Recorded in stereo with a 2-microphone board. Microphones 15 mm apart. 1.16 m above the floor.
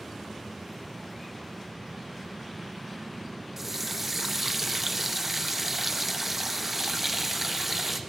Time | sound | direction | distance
3.6 | a running tap | 20° right (ahead or behind) | 0.7 m